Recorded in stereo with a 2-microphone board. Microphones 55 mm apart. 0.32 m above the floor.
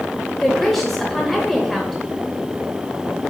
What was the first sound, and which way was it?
A woman speaking, centre (ahead or behind).